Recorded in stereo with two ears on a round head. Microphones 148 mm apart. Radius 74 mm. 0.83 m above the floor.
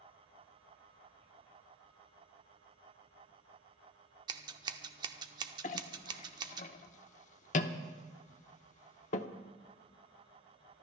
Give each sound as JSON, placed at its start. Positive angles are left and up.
{"t": 4.3, "sound": "scissors", "side_deg": -25, "distance_m": 0.8}
{"t": 5.6, "sound": "a clink", "side_deg": 45, "distance_m": 0.7}